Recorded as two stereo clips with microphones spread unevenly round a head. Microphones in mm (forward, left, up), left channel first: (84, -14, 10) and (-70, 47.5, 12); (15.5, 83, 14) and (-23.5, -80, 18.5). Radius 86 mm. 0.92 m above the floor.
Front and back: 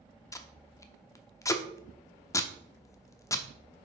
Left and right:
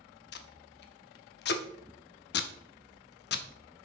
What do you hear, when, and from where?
0.3 s tape being pulled: 50° left, 0.7 m